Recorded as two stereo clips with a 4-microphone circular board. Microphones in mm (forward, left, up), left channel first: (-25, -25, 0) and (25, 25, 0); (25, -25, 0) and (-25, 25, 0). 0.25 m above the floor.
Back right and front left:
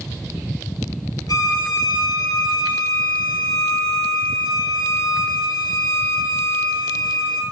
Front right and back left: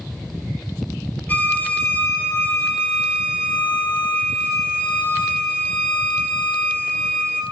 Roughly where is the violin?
Right.